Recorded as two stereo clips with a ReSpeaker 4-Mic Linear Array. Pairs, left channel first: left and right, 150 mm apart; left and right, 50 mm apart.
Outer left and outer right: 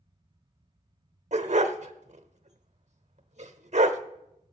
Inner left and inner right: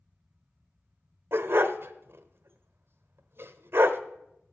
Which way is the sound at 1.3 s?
50° right (ahead or behind).